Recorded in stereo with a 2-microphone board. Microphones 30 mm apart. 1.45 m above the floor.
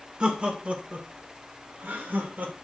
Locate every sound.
0.2 s laughter: 40° right (ahead or behind), 2 m; by 2.5 s 75° right (ahead or behind), 3 m